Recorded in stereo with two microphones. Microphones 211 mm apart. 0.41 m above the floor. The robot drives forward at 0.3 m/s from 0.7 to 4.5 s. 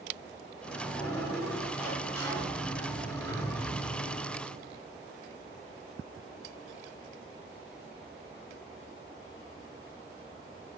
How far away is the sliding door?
About 1.4 m.